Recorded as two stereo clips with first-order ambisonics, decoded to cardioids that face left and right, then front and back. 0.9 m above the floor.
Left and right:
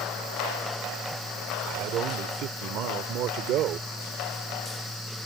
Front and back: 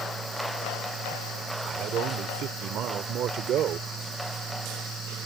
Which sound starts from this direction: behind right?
A man speaking, at 1.6 s.